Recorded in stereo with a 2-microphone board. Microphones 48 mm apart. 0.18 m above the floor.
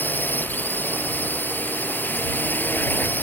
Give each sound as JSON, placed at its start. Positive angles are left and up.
{"t": 0.0, "sound": "a drone", "side_deg": 40}